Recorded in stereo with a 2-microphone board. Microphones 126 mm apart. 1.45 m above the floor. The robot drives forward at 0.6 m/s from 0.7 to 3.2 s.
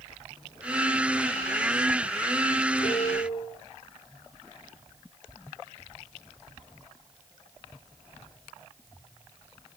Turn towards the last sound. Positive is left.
turn(degrees=75)  # may be behind; listen again after turning